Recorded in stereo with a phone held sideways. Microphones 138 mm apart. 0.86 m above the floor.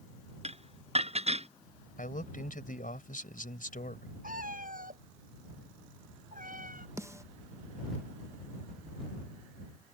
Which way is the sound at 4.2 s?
90° right.